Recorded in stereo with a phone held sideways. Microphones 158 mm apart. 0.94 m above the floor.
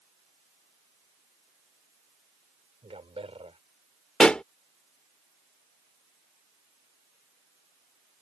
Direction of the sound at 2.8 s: 40° right (ahead or behind).